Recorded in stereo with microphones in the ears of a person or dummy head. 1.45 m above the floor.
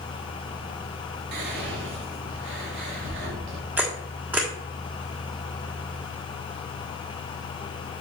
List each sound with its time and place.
1.3 s whispering: 65° right (ahead or behind), 2.5 m
3.8 s a camera shutter: 10° right (ahead or behind), 1.5 m